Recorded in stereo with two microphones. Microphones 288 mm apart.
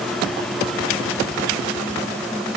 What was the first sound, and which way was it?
Only background noise.